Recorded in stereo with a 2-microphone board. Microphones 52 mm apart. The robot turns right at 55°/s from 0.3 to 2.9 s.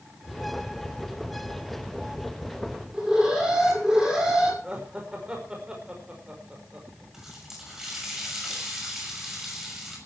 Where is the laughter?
20° right (ahead or behind), 5 m.